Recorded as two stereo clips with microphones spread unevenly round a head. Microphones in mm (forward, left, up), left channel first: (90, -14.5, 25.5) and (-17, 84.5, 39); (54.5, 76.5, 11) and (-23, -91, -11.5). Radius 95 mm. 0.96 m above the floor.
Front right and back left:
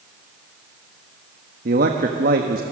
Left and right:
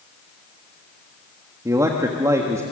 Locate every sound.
1.6 s a man speaking: 170° left, 1.3 m